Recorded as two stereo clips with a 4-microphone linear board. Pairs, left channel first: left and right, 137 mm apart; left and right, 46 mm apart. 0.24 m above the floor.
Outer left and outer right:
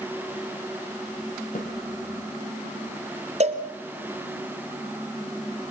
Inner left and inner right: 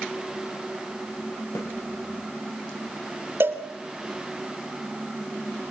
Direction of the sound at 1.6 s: 80° left.